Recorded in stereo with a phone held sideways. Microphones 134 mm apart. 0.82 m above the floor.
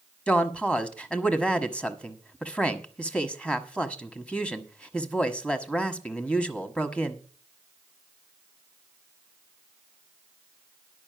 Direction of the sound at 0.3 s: 10° left (ahead or behind).